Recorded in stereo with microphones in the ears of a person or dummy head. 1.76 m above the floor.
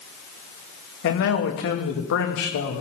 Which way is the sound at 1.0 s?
70° left (ahead or behind).